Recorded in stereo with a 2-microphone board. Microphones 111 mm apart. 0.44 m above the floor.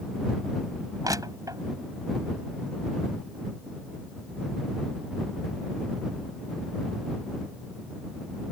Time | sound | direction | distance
1.0 | crushing | 35° right (ahead or behind) | ?